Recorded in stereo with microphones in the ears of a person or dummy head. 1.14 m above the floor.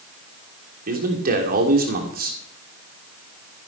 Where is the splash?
I don't hear a splash.